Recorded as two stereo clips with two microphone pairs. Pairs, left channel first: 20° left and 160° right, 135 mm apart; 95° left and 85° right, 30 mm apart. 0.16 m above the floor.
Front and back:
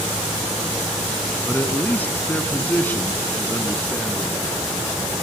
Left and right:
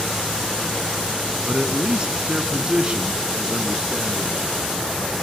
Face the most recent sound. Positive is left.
turn(degrees=-50)